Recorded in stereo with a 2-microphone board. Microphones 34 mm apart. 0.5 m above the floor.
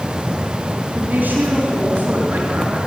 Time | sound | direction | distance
0.9 | a woman speaking | 60° right (ahead or behind) | 4.5 m